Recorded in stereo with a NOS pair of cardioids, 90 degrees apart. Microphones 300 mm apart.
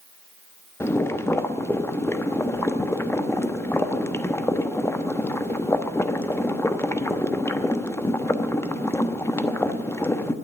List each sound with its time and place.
0.8 s boiling: 10° left, 1.0 m